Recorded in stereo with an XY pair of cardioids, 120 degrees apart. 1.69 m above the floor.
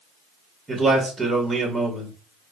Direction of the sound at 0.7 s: 20° right.